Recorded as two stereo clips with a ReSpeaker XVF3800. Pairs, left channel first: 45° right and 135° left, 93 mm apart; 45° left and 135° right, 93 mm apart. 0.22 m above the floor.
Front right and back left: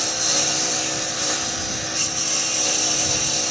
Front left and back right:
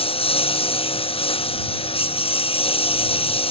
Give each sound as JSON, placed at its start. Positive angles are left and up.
{"t": 0.0, "sound": "a lawn mower", "azimuth_deg": 45}